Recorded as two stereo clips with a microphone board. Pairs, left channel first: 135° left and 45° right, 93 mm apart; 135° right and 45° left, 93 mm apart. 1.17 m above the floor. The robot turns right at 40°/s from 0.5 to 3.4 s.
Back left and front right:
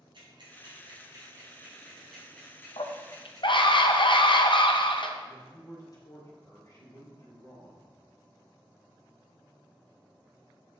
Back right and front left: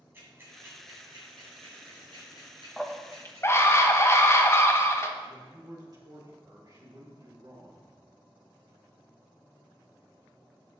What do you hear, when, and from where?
0.1 s ticking: 20° right, 3 m; by 3.7 s 95° left, 3 m
2.8 s a scream: 135° left, 0.8 m; by 5.1 s 160° left, 0.8 m
5.2 s a man speaking: 90° left, 2 m